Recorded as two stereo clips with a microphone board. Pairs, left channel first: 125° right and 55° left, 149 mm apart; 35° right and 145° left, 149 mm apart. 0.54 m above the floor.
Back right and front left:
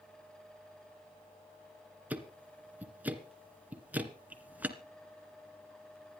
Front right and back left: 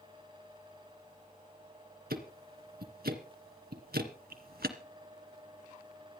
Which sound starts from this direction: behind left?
Ticking, at 2.1 s.